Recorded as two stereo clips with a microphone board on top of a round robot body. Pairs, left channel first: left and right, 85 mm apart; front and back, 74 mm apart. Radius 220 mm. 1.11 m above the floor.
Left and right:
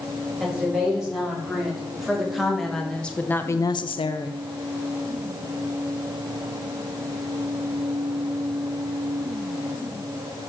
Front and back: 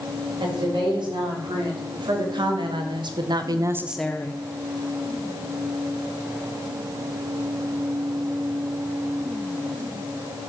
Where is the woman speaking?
170° right, 5 m; by 4.4 s 55° left, 0.9 m.